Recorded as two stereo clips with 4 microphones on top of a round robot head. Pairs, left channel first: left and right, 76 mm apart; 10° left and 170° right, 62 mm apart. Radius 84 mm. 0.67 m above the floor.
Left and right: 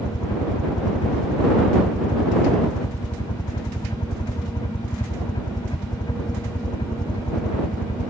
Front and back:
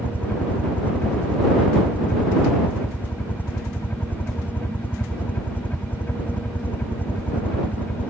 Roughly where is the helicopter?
Left.